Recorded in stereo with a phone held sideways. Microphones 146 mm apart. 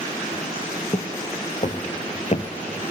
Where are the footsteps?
45° left (ahead or behind), 1.9 m.